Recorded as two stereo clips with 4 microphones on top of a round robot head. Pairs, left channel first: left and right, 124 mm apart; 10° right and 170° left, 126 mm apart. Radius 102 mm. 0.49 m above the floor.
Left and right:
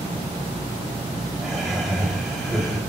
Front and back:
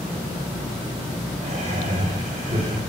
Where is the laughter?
Straight behind, 3.5 m.